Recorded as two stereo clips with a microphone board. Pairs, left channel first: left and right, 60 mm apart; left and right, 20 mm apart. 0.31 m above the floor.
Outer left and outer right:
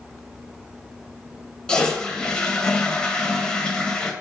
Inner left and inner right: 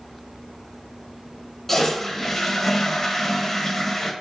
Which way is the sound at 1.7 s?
15° left (ahead or behind).